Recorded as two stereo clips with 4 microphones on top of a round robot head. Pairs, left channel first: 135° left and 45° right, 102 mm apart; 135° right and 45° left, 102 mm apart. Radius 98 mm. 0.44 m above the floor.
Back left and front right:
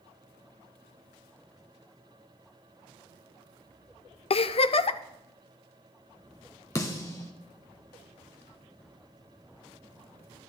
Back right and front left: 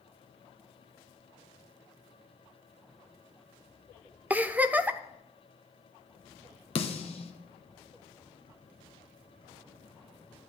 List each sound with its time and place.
4.3 s a giggle: 120° left, 0.5 m
6.8 s a snare drum: 165° right, 1.0 m